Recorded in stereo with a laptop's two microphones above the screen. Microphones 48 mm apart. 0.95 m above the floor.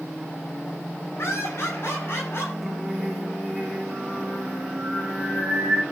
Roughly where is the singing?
Centre.